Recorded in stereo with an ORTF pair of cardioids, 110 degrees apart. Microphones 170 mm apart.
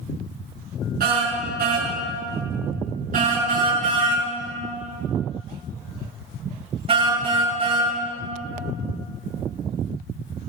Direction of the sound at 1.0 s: 60° right.